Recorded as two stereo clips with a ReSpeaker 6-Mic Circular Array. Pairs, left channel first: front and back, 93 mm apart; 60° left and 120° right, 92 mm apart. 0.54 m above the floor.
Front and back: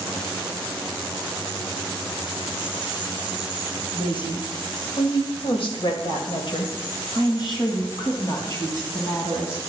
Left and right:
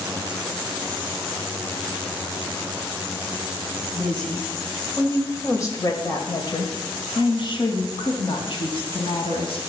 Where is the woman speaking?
25° right, 2 m; by 9.6 s 55° left, 3.5 m.